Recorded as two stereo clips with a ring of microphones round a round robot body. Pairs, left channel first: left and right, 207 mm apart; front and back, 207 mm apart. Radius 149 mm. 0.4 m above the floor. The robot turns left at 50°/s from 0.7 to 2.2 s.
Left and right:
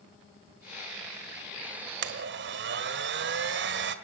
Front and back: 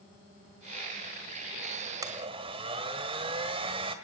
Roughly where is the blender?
Right.